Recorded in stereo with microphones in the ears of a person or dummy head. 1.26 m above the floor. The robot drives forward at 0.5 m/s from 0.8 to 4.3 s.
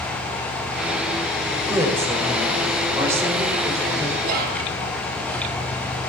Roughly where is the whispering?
Right.